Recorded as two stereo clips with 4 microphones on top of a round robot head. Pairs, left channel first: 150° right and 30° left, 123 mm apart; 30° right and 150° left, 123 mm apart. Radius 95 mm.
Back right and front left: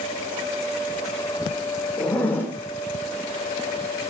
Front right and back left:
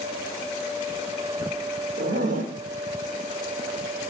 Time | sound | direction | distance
2.0 | a zipper | 135° left | 3 m